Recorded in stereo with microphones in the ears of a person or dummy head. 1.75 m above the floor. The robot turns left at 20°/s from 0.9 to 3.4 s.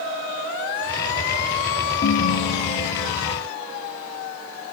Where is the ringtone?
35° left (ahead or behind), 1.0 m; by 3.4 s 50° left (ahead or behind), 1.0 m.